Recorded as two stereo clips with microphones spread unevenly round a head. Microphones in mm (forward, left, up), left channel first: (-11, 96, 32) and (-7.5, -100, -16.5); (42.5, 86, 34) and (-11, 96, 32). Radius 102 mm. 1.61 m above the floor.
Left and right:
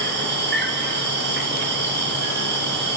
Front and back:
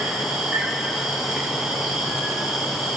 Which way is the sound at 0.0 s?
105° right.